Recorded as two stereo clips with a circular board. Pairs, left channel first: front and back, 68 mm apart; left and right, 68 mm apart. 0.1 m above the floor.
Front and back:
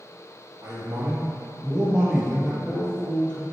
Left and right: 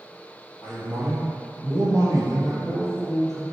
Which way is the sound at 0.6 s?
135° right.